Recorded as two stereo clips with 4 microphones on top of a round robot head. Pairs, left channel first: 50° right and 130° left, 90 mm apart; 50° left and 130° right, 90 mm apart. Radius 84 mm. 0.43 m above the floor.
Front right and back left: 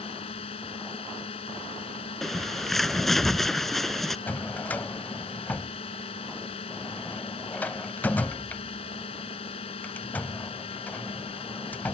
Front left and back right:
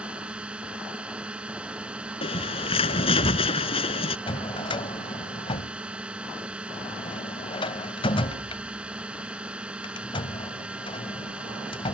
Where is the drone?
50° right.